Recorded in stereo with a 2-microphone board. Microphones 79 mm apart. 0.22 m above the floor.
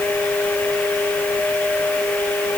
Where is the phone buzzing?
No phone buzzing in this recording.